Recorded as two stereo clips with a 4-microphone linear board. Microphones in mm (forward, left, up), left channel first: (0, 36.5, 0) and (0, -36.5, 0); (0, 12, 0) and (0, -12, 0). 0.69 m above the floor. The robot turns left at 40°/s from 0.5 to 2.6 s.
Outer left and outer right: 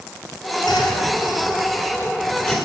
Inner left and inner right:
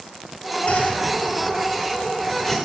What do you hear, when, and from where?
0.7 s a whoosh: 70° left (ahead or behind), 2.5 m; by 2.5 s 5° left (ahead or behind), 2.5 m